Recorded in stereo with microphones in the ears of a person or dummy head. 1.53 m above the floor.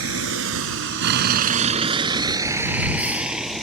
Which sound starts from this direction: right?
A vehicle, at 0.0 s.